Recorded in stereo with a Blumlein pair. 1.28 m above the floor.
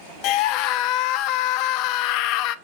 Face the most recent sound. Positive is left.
turn(degrees=40)